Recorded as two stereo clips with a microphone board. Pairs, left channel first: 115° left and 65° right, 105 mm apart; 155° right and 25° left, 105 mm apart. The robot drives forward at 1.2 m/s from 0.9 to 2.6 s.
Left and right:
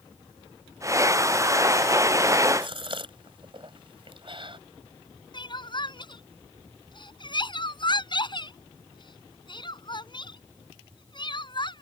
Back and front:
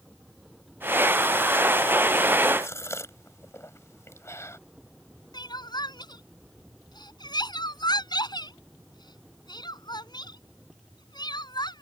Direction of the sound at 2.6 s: 95° right.